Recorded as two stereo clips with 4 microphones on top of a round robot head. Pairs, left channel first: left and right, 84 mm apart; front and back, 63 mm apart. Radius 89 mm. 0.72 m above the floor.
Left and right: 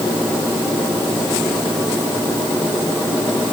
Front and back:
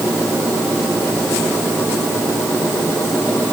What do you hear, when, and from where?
Only background noise.